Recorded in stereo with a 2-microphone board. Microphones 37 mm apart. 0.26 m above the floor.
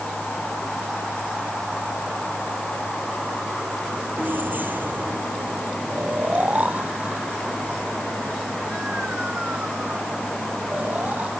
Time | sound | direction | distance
4.2 | keys jangling | 60° right (ahead or behind) | ?
5.9 | snoring | 45° right (ahead or behind) | ?